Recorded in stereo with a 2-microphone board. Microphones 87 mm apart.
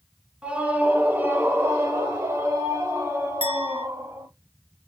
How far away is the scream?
About 1.3 m.